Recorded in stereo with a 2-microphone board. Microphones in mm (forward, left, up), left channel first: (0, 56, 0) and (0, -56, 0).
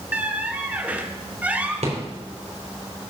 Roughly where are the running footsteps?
I don't hear running footsteps.